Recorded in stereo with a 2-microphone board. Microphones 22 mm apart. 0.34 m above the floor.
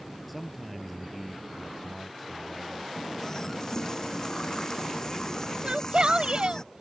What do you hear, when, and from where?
0.3 s a man speaking: 5° left (ahead or behind)
3.0 s a running tap: 30° left (ahead or behind)
5.6 s a shout: 50° right (ahead or behind)